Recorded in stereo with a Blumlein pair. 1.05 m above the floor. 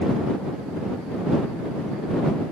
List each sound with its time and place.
Only background noise.